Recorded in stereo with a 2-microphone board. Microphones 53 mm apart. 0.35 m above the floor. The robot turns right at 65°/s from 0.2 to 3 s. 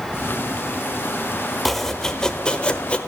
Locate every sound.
1.6 s chopping: centre (ahead or behind), 0.8 m; by 3.0 s 20° left (ahead or behind), 0.8 m